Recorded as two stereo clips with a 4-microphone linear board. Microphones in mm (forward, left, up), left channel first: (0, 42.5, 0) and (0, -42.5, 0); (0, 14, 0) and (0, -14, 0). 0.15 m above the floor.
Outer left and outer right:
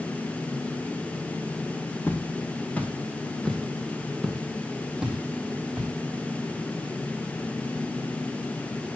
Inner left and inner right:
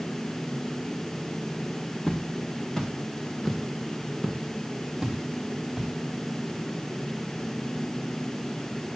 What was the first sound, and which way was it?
Footsteps, 25° left (ahead or behind).